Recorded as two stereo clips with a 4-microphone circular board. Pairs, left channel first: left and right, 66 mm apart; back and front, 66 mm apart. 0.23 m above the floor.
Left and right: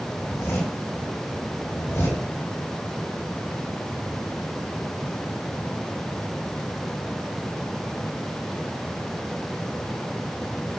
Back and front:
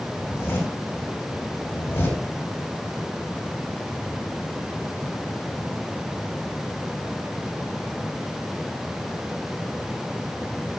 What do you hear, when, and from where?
0.2 s a zipper: 130° left, 5.5 m